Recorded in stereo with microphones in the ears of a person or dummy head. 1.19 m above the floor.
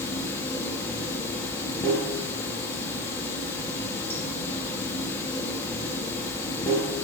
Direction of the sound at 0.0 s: 20° left (ahead or behind).